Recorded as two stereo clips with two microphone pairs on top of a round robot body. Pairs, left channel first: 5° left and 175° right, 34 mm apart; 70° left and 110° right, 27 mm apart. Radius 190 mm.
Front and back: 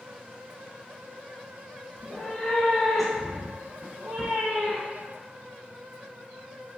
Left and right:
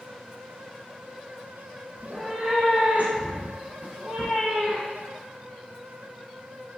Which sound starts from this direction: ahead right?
A cat meowing, at 2.0 s.